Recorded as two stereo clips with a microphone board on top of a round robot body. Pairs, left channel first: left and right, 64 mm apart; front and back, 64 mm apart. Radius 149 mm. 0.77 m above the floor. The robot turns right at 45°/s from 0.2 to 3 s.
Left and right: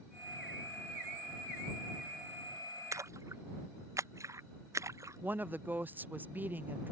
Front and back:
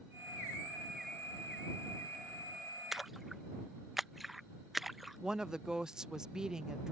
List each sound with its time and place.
2.9 s a splash: 100° right; by 5.2 s 95° right
5.2 s a woman speaking: 110° right